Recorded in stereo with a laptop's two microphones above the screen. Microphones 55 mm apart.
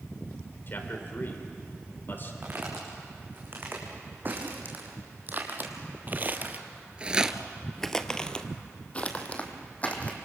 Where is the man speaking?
45° left (ahead or behind), 4 m.